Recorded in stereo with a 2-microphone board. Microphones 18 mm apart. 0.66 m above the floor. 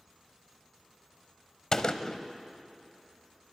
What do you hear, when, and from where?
1.7 s a gunshot: 45° left (ahead or behind), 0.9 m